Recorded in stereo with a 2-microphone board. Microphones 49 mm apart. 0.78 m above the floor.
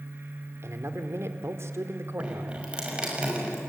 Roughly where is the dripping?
Right.